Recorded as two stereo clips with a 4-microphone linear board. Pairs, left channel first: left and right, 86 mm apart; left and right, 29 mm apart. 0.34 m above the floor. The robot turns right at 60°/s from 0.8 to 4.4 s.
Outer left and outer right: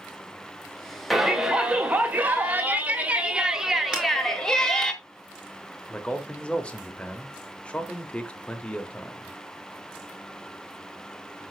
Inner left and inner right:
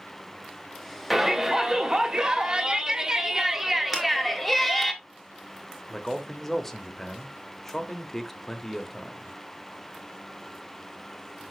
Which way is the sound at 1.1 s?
Centre (ahead or behind).